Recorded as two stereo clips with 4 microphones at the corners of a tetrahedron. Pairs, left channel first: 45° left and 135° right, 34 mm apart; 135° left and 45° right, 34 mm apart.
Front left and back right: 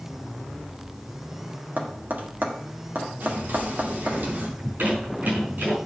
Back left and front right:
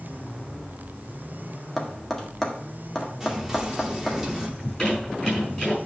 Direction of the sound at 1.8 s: 150° right.